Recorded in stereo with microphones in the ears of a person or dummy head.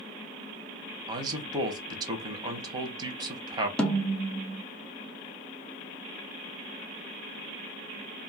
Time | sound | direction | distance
1.1 | a man speaking | 25° right (ahead or behind) | 1.0 m
3.8 | a snare drum | 5° left (ahead or behind) | 0.6 m